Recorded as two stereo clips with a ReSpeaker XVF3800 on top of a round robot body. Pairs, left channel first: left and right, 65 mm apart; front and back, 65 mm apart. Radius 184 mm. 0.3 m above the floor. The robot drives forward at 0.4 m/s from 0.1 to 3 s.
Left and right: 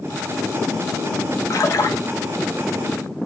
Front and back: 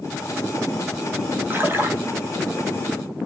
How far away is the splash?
About 2.5 m.